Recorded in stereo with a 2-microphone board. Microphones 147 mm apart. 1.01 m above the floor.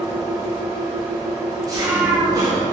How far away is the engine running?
About 1.7 m.